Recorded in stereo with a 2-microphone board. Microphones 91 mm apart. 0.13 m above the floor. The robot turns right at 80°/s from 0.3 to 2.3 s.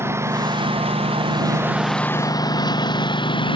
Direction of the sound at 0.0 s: 25° right (ahead or behind).